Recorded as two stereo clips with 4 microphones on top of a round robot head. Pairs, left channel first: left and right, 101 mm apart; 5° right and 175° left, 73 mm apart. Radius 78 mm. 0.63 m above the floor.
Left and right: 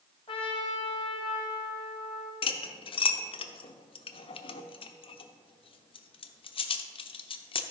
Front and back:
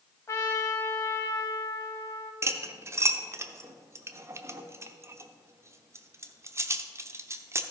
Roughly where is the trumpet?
Ahead left.